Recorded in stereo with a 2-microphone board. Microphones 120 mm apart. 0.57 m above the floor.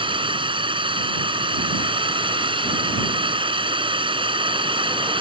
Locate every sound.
0.0 s a drone: 45° right (ahead or behind)